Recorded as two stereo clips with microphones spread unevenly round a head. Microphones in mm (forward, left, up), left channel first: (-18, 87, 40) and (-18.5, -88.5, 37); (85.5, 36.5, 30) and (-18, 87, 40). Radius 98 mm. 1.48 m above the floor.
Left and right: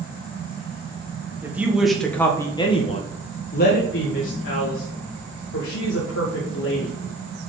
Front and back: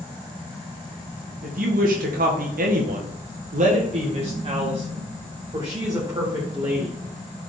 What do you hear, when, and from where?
1.4 s a woman speaking: 170° right, 1.5 m; by 7.0 s 85° left, 3 m